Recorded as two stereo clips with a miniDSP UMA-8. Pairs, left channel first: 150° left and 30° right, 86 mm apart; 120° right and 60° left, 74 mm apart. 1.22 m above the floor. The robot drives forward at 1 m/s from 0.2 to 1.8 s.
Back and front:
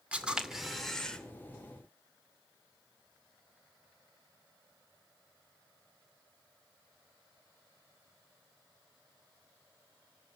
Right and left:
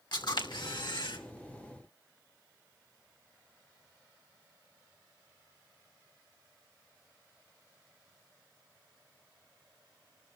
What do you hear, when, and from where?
0.1 s a camera shutter: 105° right, 2 m; by 1.2 s 130° right, 2.5 m